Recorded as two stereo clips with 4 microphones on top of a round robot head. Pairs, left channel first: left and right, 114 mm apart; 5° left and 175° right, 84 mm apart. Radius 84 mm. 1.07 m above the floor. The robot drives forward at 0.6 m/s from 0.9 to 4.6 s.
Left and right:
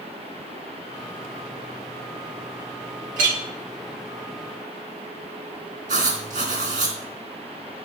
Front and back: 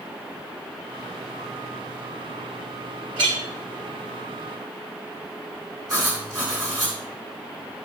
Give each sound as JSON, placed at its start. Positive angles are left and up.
{"t": 3.2, "sound": "a clink", "azimuth_deg": -120, "distance_m": 1.1}
{"t": 5.9, "sound": "writing", "azimuth_deg": -115, "distance_m": 3.0}